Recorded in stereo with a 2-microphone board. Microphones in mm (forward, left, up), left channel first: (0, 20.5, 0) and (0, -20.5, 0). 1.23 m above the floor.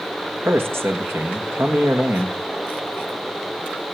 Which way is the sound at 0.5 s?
75° right (ahead or behind).